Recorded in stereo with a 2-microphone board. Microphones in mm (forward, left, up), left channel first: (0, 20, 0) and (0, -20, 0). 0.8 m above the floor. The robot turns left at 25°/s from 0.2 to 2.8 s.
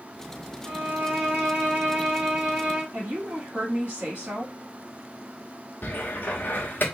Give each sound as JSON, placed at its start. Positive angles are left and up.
{"t": 0.7, "sound": "a violin", "azimuth_deg": -80, "distance_m": 1.9}
{"t": 2.9, "sound": "a woman speaking", "side_deg": -45, "distance_m": 1.8}
{"t": 5.8, "sound": "a cupboard door", "side_deg": 50, "distance_m": 0.8}